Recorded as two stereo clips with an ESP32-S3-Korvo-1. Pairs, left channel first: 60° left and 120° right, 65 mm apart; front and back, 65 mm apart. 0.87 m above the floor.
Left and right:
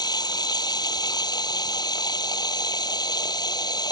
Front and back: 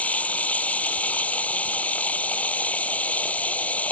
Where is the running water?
70° left.